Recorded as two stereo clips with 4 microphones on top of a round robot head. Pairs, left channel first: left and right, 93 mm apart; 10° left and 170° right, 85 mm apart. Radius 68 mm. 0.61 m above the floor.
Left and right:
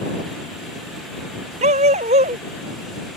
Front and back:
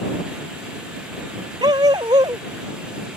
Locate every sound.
1.6 s a dog barking: 115° right